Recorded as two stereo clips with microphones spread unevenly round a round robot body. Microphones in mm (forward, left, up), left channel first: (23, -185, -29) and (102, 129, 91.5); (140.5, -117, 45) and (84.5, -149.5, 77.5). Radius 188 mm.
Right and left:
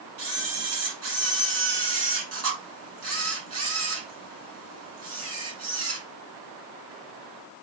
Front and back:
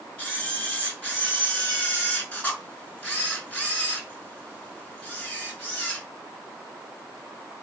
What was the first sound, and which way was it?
A camera shutter, 135° left.